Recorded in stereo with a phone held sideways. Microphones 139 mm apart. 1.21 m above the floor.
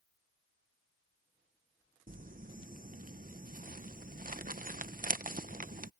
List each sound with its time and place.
2.1 s crumpling: 75° right (ahead or behind)